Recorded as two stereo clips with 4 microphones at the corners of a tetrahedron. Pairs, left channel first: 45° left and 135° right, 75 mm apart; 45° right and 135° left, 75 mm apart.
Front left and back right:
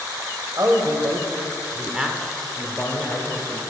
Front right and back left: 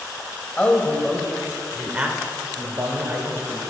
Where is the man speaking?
110° right, 1.6 m; by 3.6 s 100° left, 2 m.